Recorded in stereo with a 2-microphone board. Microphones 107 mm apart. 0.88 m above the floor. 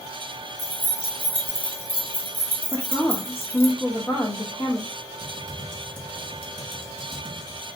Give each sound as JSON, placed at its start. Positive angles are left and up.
{"t": 0.6, "sound": "keys jangling", "side_deg": 20, "distance_m": 0.9}
{"t": 2.7, "sound": "a woman speaking", "side_deg": 20, "distance_m": 0.8}
{"t": 5.2, "sound": "typing on a keyboard", "side_deg": 15, "distance_m": 1.4}